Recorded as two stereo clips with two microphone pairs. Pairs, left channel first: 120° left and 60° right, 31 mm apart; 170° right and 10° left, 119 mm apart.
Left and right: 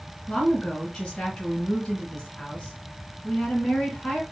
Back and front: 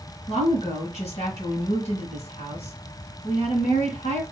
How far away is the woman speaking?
About 3.5 m.